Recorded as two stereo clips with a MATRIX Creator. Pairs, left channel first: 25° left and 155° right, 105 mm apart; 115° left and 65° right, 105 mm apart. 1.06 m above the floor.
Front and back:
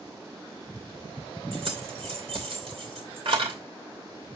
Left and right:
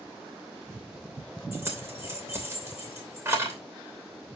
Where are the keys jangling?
135° right, 2.5 m.